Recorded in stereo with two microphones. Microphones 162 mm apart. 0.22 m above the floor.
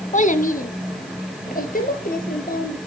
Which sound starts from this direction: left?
A child speaking, at 0.1 s.